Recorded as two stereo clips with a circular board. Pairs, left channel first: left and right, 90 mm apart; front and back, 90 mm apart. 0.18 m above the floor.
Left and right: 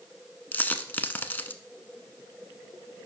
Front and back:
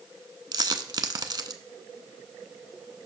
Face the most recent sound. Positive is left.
turn(degrees=155)